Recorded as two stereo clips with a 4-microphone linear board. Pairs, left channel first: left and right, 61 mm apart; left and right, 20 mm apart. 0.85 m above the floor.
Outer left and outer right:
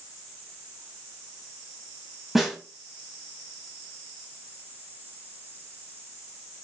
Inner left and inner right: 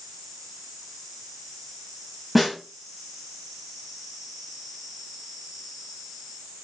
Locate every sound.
2.4 s a snare drum: centre (ahead or behind), 0.9 m